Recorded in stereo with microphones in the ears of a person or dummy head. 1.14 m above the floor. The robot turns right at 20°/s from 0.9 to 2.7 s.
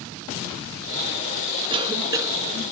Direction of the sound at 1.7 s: 25° right (ahead or behind).